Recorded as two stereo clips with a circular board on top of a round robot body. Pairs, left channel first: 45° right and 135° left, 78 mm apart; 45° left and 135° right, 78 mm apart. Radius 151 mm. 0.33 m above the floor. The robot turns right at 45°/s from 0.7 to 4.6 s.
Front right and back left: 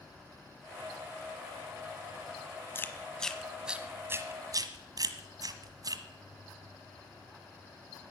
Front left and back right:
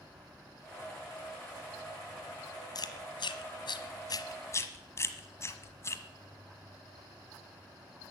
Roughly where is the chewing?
Ahead.